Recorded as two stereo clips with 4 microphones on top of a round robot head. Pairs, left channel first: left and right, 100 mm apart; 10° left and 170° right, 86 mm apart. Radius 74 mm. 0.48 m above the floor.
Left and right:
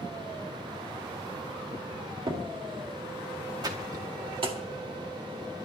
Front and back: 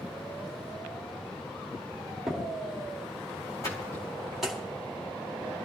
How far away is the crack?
About 1.8 m.